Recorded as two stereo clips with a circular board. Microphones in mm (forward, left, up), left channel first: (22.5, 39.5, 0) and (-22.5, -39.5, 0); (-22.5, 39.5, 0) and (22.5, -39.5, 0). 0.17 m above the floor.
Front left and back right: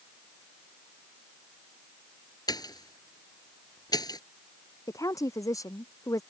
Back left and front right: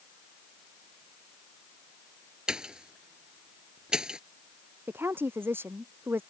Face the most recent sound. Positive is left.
turn(degrees=5)